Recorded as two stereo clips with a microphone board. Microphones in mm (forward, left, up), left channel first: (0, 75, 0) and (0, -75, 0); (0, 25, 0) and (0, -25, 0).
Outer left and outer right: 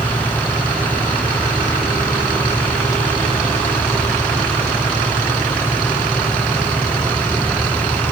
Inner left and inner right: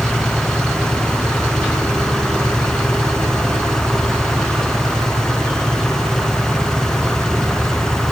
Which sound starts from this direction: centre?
An engine running, at 0.0 s.